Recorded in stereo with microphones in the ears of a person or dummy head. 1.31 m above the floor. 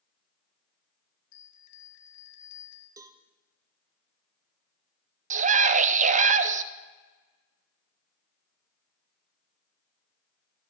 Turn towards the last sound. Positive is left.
turn(degrees=-40)  # may be behind; listen again after turning